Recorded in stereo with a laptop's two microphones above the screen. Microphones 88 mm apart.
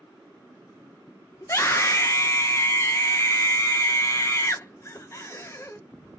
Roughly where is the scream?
Left.